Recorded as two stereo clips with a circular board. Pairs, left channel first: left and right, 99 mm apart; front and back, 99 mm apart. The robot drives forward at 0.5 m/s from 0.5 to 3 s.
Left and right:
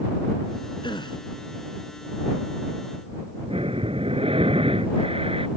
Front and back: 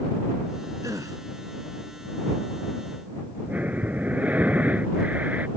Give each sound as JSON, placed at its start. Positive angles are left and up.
{"t": 0.8, "sound": "a gasp", "azimuth_deg": 125}
{"t": 3.5, "sound": "breathing", "azimuth_deg": -105}